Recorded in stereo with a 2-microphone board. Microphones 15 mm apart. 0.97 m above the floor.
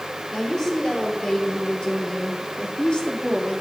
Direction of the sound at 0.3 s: 35° left (ahead or behind).